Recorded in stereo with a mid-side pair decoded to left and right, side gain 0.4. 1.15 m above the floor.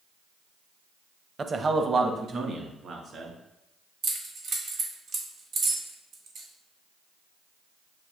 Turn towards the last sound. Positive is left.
turn(degrees=-70)